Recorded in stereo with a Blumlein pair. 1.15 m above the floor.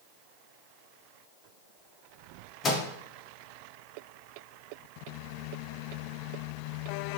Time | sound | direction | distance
2.6 | a microwave | 25° left | 0.6 m